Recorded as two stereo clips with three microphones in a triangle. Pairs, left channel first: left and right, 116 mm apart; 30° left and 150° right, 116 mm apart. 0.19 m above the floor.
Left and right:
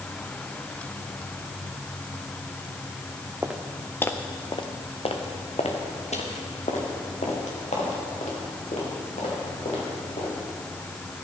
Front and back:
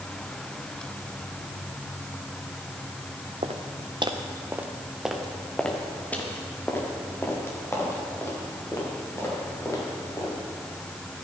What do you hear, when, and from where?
3.4 s footsteps: 165° right, 1.5 m; by 10.3 s 90° left, 8.5 m